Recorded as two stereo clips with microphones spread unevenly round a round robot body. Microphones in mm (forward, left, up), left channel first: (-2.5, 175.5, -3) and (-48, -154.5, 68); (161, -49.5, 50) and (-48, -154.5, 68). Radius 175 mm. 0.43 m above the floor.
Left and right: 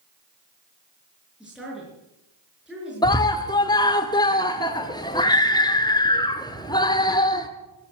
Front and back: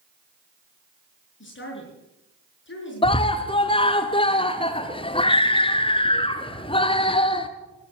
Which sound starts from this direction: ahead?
A woman speaking, at 1.4 s.